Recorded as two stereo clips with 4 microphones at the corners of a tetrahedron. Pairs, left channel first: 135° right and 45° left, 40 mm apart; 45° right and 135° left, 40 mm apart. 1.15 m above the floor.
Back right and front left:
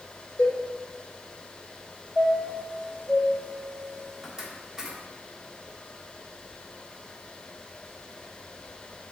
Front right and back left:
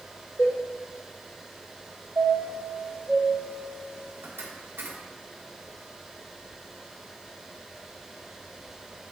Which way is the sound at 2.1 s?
120° left.